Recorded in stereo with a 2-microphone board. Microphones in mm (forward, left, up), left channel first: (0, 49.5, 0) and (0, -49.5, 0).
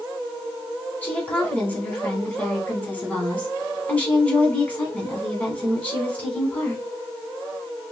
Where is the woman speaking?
15° left (ahead or behind), 1.8 m.